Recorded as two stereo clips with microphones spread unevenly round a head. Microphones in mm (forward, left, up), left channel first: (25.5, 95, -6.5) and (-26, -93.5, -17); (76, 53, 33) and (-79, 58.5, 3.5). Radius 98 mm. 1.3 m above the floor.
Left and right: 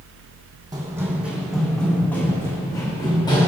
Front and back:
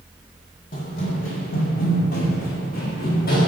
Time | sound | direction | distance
0.7 | running footsteps | 35° right | 2.5 m